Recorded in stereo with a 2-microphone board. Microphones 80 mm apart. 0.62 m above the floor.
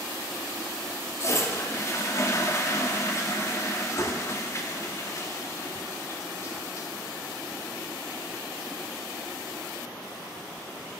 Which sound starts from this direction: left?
A toilet flushing, at 1.2 s.